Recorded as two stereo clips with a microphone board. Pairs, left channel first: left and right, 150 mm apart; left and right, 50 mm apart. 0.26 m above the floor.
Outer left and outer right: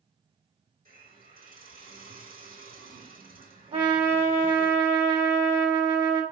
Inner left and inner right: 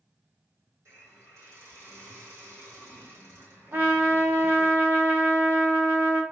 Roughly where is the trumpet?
Right.